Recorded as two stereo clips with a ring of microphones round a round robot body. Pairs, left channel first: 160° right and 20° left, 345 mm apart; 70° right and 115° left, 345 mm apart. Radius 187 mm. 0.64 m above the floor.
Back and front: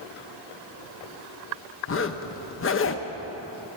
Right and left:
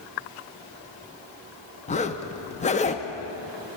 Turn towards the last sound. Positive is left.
turn(degrees=-130)